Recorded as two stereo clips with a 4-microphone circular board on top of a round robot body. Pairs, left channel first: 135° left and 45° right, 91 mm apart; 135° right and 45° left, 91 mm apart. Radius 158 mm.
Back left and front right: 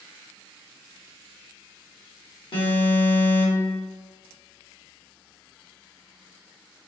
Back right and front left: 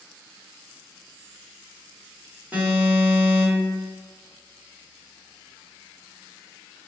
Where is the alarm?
115° left, 1.7 m.